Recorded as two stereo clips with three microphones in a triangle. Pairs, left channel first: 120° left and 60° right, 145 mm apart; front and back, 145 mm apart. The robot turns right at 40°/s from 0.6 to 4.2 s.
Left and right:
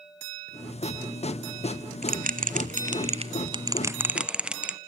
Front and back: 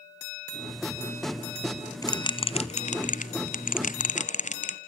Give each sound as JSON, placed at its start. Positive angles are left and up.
{"t": 2.0, "sound": "a bell", "azimuth_deg": -65, "distance_m": 1.1}